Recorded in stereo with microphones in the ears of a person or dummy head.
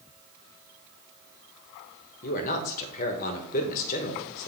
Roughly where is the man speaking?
Left.